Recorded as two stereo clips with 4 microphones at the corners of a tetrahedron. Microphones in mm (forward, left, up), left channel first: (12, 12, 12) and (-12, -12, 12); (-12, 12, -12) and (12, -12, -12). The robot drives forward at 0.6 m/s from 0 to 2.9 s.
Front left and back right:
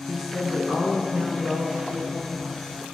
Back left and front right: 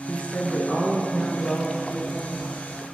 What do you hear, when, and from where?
0.1 s a woman speaking: 165° left, 1.4 m; by 2.9 s 175° left, 3 m